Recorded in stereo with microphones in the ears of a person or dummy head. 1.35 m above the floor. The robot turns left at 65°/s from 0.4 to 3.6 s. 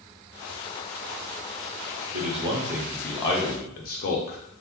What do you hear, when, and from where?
2.1 s a man speaking: 50° right (ahead or behind), 0.6 m; by 4.4 s 45° left (ahead or behind), 0.6 m